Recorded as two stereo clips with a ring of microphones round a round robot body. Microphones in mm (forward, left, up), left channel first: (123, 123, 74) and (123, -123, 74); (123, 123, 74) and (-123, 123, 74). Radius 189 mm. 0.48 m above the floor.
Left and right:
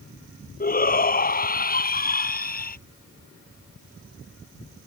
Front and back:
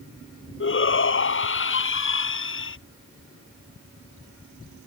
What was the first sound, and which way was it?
A shout, 35° left.